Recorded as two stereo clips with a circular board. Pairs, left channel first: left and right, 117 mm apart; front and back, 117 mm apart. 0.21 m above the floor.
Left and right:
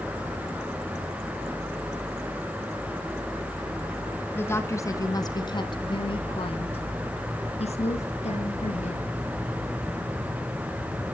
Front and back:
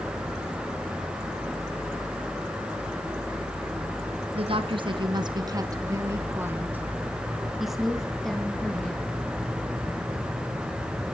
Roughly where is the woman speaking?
Behind.